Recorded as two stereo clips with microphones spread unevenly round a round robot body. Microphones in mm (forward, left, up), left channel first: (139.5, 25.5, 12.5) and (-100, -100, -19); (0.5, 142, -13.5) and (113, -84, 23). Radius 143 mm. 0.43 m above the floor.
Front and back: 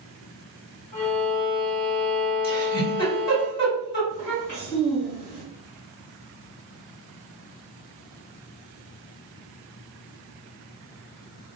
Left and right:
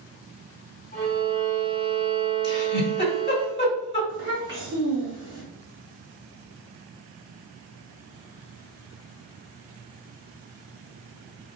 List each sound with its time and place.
0.9 s a violin: 65° left, 1.7 m
2.4 s a giggle: 60° left, 1.9 m
4.1 s a child speaking: 50° left, 1.7 m